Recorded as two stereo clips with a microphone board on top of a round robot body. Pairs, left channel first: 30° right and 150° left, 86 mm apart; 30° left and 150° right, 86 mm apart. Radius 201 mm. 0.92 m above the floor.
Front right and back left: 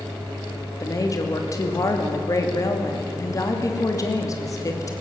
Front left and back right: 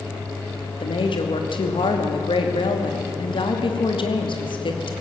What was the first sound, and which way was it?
A woman speaking, 20° left.